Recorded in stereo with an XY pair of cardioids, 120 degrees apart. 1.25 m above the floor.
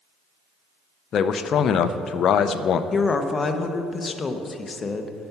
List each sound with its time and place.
1.1 s a man speaking: 50° left, 0.6 m
2.9 s a woman speaking: 30° left, 0.8 m